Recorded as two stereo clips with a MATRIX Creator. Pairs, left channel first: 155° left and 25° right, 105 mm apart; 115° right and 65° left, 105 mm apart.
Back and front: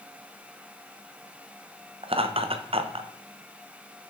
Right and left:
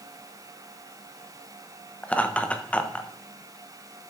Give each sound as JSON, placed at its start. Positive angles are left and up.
{"t": 2.0, "sound": "laughter", "azimuth_deg": -35, "distance_m": 0.8}